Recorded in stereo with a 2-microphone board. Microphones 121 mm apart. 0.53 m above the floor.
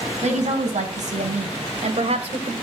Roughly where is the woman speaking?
Right.